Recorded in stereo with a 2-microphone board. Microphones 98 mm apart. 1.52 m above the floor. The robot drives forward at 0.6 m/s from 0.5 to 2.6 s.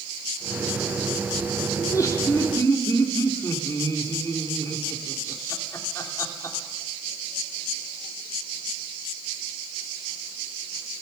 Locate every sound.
1.8 s laughter: 35° left (ahead or behind), 3 m; by 6.6 s 30° left (ahead or behind), 3.5 m